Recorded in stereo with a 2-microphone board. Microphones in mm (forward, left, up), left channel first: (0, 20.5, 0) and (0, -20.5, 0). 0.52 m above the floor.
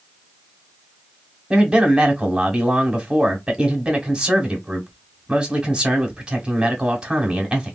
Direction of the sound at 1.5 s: 20° right (ahead or behind).